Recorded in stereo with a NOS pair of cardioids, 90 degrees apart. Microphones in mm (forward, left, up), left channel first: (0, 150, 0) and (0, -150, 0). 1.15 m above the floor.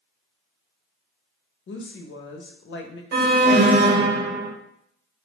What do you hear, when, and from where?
1.7 s a woman speaking: 40° left, 0.7 m
3.1 s an alarm: 35° right, 0.9 m